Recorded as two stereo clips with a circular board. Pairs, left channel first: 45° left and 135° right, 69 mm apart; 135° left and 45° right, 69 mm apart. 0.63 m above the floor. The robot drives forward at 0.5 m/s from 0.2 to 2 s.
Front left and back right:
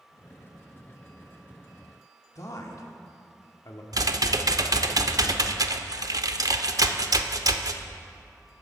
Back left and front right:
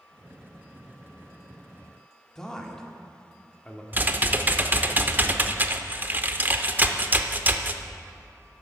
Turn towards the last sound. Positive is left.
turn(degrees=-105)